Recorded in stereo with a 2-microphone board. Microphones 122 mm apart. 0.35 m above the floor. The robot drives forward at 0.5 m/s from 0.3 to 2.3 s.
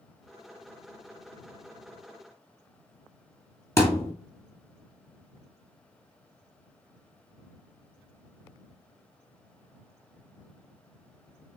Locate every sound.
3.8 s a thud: 20° left (ahead or behind), 1.4 m